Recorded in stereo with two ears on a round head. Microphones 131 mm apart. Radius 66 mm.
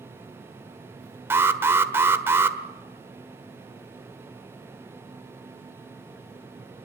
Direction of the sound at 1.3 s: 15° right (ahead or behind).